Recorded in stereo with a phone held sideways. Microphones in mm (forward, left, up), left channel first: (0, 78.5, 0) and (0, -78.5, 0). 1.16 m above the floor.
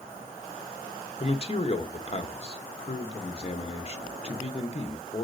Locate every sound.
1.2 s a man speaking: 40° left (ahead or behind), 1.1 m